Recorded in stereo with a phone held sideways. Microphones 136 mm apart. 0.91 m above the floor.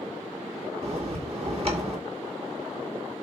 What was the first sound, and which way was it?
A bell, 45° right (ahead or behind).